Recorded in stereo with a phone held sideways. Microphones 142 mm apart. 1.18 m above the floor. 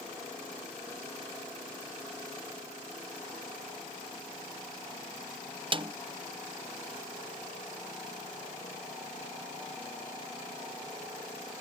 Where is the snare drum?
35° right (ahead or behind).